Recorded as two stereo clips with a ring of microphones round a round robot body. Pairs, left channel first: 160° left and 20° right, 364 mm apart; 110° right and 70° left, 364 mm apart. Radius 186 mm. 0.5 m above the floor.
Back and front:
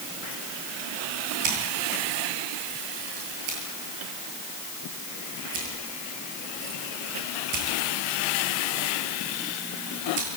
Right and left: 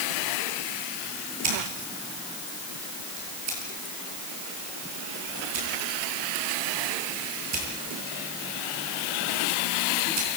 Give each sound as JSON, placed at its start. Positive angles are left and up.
{"t": 1.4, "sound": "scissors", "azimuth_deg": 20, "distance_m": 9.0}